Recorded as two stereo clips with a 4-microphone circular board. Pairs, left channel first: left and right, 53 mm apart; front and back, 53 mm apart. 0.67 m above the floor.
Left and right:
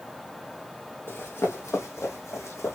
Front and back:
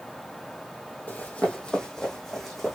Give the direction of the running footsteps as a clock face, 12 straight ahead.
10 o'clock.